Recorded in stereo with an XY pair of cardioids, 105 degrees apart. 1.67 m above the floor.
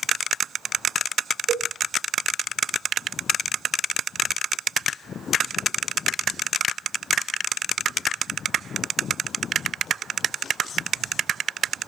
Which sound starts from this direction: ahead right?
A cowbell, at 1.5 s.